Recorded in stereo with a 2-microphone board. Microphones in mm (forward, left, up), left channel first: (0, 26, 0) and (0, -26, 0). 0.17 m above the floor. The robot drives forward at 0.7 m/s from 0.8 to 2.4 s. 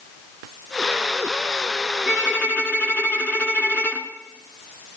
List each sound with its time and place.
2.1 s a violin: 30° left (ahead or behind), 2 m